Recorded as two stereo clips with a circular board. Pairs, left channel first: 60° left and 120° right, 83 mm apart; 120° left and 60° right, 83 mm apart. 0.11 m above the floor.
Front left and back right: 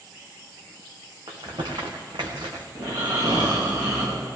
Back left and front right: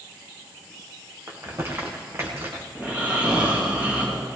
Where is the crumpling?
120° right, 2.5 m.